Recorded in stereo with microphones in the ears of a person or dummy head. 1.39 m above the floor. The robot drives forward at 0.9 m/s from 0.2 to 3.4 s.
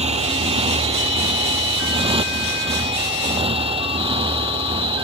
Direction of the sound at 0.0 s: 35° right (ahead or behind).